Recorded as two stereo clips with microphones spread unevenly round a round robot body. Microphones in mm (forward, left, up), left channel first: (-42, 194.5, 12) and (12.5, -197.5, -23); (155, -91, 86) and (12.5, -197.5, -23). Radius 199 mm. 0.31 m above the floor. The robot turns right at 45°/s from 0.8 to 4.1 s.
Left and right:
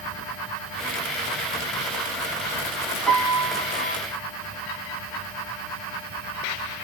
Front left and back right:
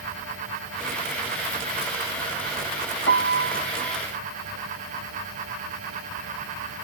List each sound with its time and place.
3.1 s a piano: 10° left, 0.9 m; by 4.0 s 50° left, 0.9 m